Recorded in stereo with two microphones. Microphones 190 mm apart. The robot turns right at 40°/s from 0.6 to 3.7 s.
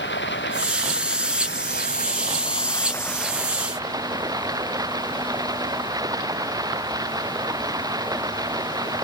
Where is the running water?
75° left; by 9.0 s 160° right.